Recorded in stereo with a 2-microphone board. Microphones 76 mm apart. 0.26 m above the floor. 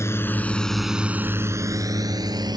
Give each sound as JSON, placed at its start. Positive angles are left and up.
{"t": 0.0, "sound": "a drone", "side_deg": 35}